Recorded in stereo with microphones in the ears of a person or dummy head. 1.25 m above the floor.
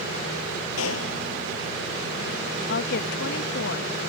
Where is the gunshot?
80° left.